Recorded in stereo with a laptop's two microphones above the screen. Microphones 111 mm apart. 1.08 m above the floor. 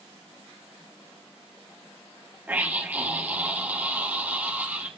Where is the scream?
15° right (ahead or behind), 1.4 m.